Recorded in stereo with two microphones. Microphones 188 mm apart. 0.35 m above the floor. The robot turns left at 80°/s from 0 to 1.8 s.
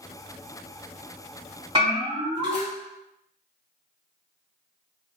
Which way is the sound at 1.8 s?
30° right (ahead or behind).